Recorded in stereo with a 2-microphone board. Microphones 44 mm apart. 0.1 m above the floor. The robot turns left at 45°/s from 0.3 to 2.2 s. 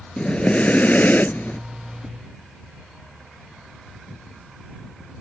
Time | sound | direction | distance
0.2 | breathing | 145° left | ?